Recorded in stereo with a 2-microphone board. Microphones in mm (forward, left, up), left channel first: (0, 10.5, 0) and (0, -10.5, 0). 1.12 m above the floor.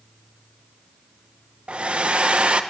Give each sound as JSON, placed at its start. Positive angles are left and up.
{"t": 1.7, "sound": "a hair dryer", "side_deg": -60, "distance_m": 0.8}